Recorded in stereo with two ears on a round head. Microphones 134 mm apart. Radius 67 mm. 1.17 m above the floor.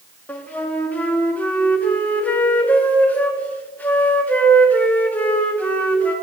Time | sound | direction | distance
0.3 | a flute | 10° left (ahead or behind) | 0.9 m